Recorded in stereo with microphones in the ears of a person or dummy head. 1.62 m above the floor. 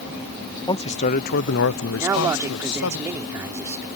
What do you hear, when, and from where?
0.7 s a man speaking: 20° left (ahead or behind); by 3.0 s 85° left
2.0 s a man speaking: 15° right (ahead or behind)